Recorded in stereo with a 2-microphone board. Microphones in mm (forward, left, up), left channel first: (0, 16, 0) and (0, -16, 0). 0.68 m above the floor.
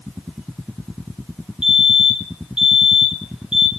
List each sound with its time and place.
1.6 s a fire alarm: 25° right (ahead or behind), 3 m